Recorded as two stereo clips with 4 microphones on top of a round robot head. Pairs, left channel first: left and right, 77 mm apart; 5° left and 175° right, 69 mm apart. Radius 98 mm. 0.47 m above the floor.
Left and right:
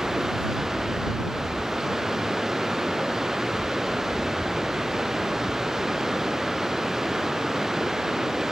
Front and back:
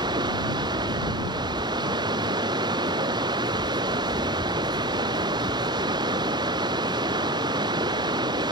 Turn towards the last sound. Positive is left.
turn(degrees=-175)